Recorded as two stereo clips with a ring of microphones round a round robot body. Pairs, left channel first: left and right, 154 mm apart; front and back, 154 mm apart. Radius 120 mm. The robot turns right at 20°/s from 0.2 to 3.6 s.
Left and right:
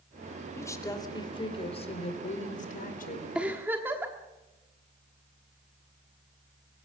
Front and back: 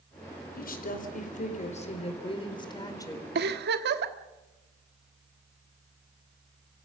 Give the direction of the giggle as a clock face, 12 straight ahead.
6 o'clock.